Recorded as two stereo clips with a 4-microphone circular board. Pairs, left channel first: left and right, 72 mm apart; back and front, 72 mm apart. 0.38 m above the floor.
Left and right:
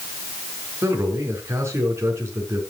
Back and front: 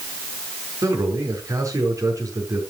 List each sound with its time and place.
0.8 s a man speaking: 40° right, 5 m